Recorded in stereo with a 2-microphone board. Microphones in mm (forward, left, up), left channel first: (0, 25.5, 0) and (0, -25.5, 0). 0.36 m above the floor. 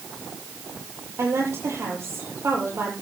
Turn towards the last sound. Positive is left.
turn(degrees=-60)  # may be behind; listen again after turning